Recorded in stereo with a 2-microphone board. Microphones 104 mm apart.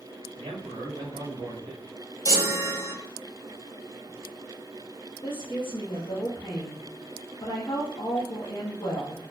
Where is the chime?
35° right (ahead or behind), 0.8 m.